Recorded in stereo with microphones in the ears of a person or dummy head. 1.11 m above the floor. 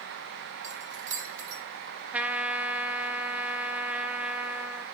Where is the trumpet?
10° right (ahead or behind), 0.7 m.